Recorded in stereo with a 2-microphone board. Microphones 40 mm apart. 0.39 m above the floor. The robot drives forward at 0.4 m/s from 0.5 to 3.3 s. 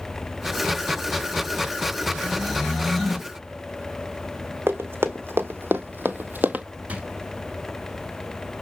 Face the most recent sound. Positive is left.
turn(degrees=-35)  # may be behind; listen again after turning